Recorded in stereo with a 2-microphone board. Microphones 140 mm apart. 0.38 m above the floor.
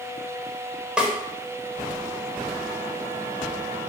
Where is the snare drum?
10° right (ahead or behind), 1.0 m.